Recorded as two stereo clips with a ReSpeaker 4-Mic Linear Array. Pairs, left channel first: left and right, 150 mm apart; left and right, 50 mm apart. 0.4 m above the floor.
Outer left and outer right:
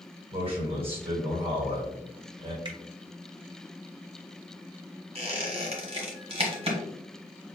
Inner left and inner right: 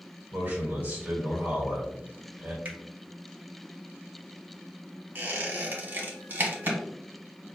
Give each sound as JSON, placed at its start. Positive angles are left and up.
{"t": 0.3, "sound": "a man speaking", "side_deg": -40, "distance_m": 1.4}
{"t": 2.6, "sound": "a finger snap", "side_deg": -30, "distance_m": 1.3}
{"t": 5.2, "sound": "a squeak", "side_deg": -40, "distance_m": 1.1}